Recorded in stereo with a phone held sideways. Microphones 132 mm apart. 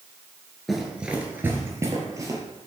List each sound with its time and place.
0.7 s running footsteps: centre (ahead or behind), 1.6 m; by 2.4 s 25° right (ahead or behind), 2 m